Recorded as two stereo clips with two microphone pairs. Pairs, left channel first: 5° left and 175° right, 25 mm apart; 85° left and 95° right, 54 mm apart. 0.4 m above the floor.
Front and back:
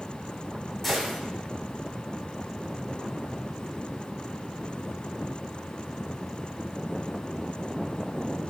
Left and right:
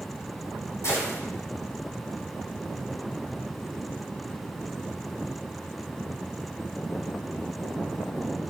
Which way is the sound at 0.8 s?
85° left.